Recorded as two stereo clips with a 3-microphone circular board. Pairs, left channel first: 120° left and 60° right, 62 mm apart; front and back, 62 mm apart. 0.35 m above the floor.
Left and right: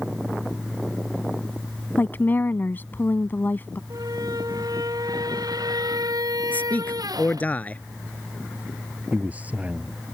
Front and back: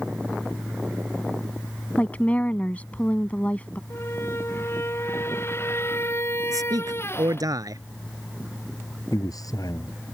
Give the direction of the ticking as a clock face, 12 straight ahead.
I don't hear ticking.